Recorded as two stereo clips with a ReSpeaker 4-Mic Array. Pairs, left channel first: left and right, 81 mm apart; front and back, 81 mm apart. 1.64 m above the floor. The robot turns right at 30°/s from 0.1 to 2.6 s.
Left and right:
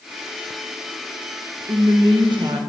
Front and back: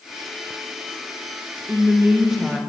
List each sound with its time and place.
1.7 s a woman speaking: 115° right, 1.5 m; by 2.6 s 90° right, 1.5 m